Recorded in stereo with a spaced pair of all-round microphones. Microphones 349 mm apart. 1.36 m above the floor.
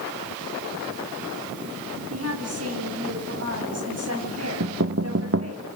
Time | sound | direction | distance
2.1 | a woman speaking | 45° right (ahead or behind) | 9.5 m
4.6 | knocking | 40° right (ahead or behind) | 0.9 m